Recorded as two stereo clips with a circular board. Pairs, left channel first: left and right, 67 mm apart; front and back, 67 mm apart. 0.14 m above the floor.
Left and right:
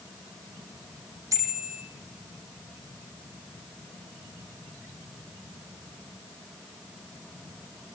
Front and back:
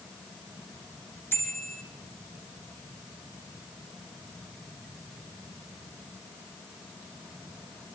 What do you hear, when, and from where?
1.3 s a bicycle bell: 55° right, 4.5 m